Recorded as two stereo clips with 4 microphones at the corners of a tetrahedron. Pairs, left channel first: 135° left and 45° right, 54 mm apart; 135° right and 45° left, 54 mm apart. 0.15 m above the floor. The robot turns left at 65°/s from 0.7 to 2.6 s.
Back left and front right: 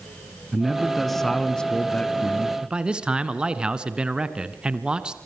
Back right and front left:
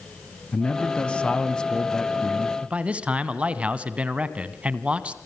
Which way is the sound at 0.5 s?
120° right.